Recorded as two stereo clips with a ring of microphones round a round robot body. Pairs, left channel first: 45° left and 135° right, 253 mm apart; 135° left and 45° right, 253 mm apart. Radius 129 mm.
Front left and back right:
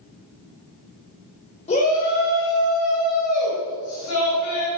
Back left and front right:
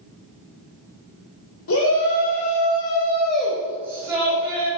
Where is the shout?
110° left, 2.5 m; by 4.7 s 25° left, 4.5 m.